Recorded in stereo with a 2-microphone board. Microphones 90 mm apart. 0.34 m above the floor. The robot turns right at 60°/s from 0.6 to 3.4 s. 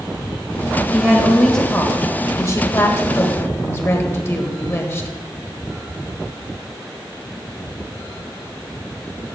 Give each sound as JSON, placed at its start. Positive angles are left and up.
{"t": 0.9, "sound": "a woman speaking", "azimuth_deg": -25, "distance_m": 1.3}